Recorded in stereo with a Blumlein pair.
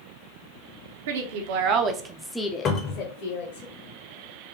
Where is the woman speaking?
60° right, 1.0 m; by 3.6 s 55° left, 1.2 m.